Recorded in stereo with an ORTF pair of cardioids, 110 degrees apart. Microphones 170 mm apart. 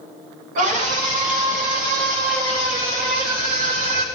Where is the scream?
55° right, 6.5 m; by 4.0 s 70° right, 6 m.